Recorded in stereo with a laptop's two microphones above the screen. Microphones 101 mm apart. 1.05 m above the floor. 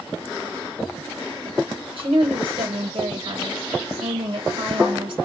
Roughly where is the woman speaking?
Right.